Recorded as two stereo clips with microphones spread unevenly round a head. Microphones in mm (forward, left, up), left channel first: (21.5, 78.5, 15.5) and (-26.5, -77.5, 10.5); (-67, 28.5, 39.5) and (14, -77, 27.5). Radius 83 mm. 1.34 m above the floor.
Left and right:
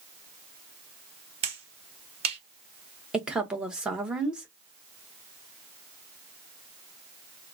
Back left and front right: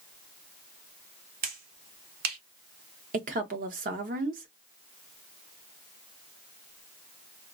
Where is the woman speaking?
20° right, 0.9 m.